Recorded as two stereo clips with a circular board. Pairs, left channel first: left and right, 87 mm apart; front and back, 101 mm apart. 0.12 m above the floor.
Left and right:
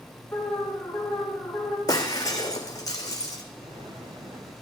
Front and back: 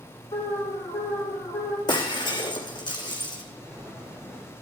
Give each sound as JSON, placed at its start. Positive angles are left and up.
{"t": 0.3, "sound": "an alarm", "azimuth_deg": 30, "distance_m": 3.5}
{"t": 1.9, "sound": "breaking glass", "azimuth_deg": 40, "distance_m": 2.0}
{"t": 3.6, "sound": "an explosion", "azimuth_deg": -90, "distance_m": 6.0}